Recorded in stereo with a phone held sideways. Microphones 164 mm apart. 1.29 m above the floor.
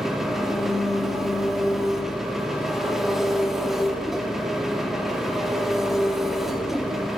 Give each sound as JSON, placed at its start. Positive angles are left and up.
{"t": 0.0, "sound": "an engine running", "side_deg": 0, "distance_m": 3.0}